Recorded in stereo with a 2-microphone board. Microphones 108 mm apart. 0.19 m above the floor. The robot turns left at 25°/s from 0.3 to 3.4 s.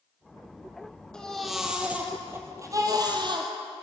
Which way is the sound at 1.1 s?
10° left.